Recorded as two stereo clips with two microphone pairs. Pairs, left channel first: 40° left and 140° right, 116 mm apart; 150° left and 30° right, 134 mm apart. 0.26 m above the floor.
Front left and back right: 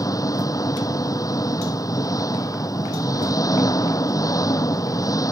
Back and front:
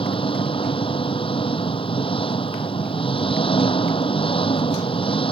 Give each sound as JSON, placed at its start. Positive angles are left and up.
{"t": 0.0, "sound": "an engine running", "azimuth_deg": 100}